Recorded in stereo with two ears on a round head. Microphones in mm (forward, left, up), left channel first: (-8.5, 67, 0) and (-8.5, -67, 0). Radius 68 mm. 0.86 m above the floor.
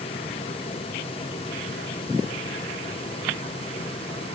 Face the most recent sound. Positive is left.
No sound to turn to.